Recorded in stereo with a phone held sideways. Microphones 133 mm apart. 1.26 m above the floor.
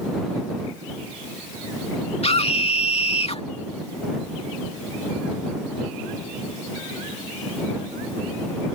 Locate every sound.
2.2 s a scream: 50° left (ahead or behind)